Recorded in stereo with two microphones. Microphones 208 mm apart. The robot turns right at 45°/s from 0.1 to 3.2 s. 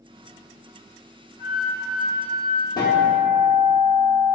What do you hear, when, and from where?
1.4 s a flute: 95° right, 0.8 m; by 2.7 s 40° right, 0.8 m
2.8 s a guitar: 20° left (ahead or behind), 0.6 m; by 4.4 s 25° left (ahead or behind), 0.6 m